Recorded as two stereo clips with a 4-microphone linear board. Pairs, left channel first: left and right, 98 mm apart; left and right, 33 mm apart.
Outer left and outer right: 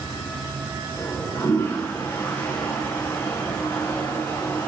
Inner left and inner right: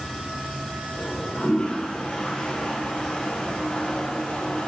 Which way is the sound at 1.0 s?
20° left (ahead or behind).